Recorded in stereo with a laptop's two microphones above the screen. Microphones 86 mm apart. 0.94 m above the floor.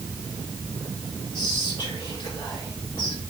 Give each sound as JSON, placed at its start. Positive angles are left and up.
{"t": 1.3, "sound": "whispering", "side_deg": 70, "distance_m": 1.6}